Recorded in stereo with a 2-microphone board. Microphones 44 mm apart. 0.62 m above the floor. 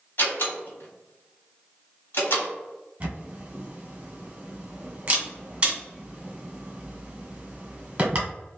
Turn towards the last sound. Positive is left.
turn(degrees=-25)  # may be behind; listen again after turning